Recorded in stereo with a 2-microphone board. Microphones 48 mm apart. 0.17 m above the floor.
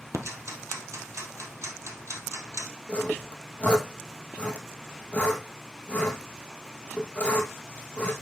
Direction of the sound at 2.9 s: 25° left (ahead or behind).